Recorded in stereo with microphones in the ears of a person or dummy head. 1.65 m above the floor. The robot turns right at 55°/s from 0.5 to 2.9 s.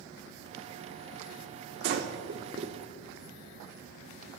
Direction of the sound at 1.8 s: 55° right (ahead or behind).